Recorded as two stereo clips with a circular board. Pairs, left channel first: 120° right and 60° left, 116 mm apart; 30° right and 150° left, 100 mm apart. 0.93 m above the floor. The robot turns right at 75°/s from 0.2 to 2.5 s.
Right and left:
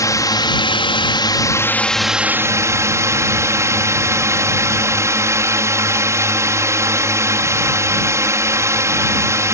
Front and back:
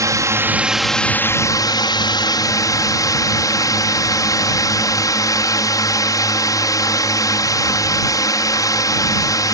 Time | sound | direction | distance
0.0 | a drone | 170° right | ?